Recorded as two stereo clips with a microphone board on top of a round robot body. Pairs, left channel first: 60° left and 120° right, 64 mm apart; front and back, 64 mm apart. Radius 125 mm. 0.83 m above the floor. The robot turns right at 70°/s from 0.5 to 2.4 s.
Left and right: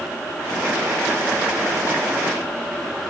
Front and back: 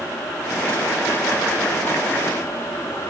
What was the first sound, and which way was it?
Only background noise.